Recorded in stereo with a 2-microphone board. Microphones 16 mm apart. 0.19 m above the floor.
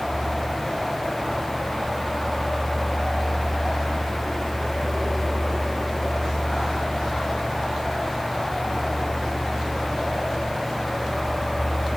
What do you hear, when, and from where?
Only background noise.